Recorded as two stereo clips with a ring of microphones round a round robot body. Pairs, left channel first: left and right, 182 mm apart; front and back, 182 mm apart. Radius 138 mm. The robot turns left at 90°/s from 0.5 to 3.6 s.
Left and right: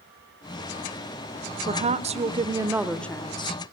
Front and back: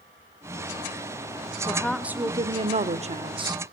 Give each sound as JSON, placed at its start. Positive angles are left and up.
{"t": 1.7, "sound": "a woman speaking", "azimuth_deg": -65, "distance_m": 0.9}